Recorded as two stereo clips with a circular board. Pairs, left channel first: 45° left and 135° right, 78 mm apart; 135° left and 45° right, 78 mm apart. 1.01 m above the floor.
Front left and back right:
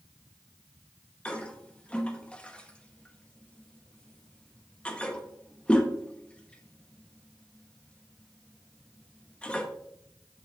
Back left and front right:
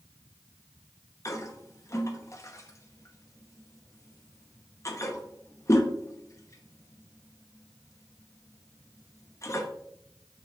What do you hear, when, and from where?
1.2 s a toilet flushing: 115° left, 0.8 m